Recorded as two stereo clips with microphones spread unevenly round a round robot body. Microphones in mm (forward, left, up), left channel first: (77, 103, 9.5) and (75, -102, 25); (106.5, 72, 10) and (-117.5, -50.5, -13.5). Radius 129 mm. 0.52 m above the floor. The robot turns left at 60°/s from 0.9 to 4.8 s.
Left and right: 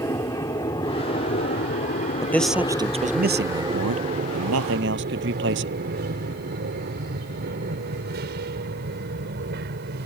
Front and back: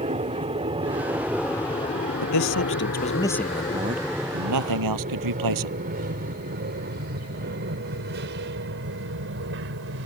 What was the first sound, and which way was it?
An aircraft, 160° left.